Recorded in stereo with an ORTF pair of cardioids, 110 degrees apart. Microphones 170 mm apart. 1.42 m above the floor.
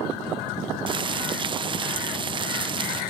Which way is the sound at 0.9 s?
30° right.